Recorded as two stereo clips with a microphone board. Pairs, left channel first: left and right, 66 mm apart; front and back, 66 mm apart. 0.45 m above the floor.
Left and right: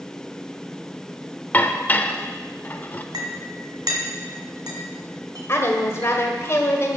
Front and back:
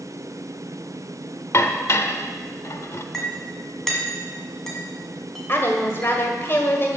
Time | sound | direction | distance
1.5 | dishes clattering | 30° left | 0.7 m
3.1 | a clink | 85° right | 1.9 m
5.5 | a woman speaking | 50° left | 1.6 m